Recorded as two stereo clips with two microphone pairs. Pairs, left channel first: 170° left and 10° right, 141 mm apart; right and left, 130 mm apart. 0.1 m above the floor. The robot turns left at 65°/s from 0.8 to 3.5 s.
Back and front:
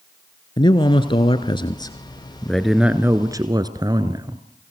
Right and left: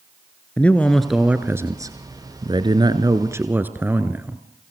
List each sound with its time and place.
0.6 s a man speaking: 160° right, 1.4 m; by 4.4 s 25° left, 1.4 m